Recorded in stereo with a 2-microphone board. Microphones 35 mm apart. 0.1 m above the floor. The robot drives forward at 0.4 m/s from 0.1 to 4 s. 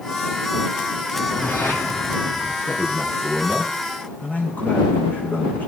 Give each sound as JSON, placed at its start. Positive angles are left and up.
{"t": 1.1, "sound": "a whoosh", "side_deg": 70, "distance_m": 4.0}
{"t": 2.7, "sound": "a man speaking", "side_deg": 45, "distance_m": 8.5}